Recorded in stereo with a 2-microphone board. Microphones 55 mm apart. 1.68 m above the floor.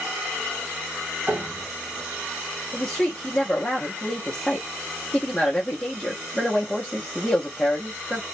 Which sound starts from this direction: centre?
A woman speaking, at 2.7 s.